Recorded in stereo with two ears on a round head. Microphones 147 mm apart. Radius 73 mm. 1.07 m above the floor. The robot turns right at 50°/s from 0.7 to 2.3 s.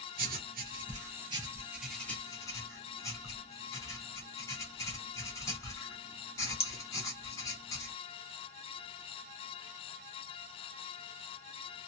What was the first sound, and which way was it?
Writing, 60° right (ahead or behind).